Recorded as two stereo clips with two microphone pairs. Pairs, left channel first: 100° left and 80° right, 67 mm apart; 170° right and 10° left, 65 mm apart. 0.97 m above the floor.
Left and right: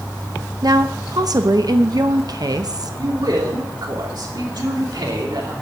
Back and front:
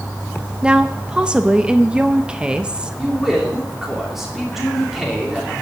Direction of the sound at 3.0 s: 75° right.